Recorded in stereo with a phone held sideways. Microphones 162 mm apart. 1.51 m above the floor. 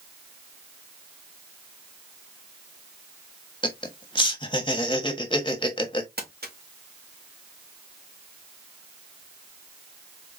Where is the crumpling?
75° right (ahead or behind), 1.9 m.